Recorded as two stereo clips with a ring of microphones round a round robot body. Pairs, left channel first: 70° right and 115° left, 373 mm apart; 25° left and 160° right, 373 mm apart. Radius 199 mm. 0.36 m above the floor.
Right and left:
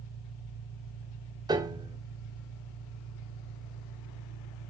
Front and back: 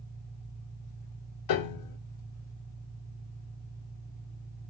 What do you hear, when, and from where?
0.0 s an engine running: 105° left, 5.5 m
1.5 s a piano: 35° left, 1.1 m